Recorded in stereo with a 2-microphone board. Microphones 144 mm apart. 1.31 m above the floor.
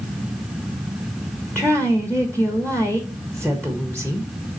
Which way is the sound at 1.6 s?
10° left (ahead or behind).